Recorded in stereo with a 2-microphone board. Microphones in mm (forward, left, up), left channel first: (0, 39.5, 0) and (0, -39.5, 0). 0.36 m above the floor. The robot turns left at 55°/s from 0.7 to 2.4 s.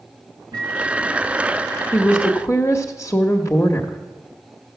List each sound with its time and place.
0.5 s a microwave: 115° right, 3.5 m; by 1.3 s 150° right, 3.5 m
1.9 s a woman speaking: 35° left (ahead or behind), 0.9 m